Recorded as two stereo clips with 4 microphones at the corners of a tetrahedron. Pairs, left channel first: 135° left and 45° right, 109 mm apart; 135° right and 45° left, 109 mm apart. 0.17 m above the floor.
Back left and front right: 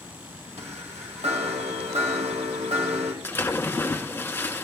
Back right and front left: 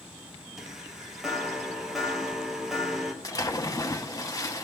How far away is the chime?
About 2.5 m.